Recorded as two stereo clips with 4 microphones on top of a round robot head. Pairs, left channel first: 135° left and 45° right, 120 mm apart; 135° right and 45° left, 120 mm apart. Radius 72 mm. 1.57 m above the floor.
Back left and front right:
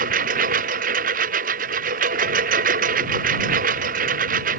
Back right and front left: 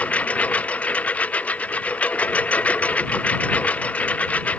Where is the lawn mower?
55° right.